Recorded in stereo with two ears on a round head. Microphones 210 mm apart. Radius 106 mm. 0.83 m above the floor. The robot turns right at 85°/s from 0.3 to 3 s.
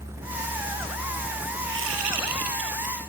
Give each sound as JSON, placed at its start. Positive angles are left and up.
{"t": 1.6, "sound": "a whoosh", "azimuth_deg": -135, "distance_m": 3.0}